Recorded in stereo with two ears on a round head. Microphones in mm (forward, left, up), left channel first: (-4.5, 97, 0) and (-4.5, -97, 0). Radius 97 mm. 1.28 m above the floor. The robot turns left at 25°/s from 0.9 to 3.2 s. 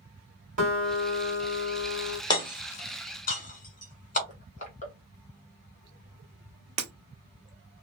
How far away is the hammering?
About 1.6 m.